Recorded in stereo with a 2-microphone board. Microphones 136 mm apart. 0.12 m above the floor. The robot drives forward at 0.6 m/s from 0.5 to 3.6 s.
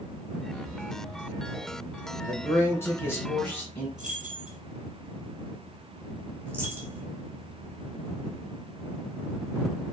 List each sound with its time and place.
2.3 s a man speaking: 20° left (ahead or behind), 1.5 m; by 3.9 s 15° left (ahead or behind), 1.7 m
4.0 s keys jangling: 65° right (ahead or behind), 1.9 m
6.5 s a dropped coin: 15° right (ahead or behind), 1.5 m